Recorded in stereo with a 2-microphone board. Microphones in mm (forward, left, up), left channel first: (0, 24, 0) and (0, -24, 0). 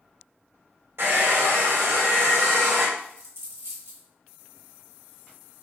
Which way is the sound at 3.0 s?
70° right (ahead or behind).